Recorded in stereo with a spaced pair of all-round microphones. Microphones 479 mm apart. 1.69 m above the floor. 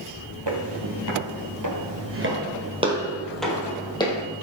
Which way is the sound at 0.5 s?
60° right (ahead or behind).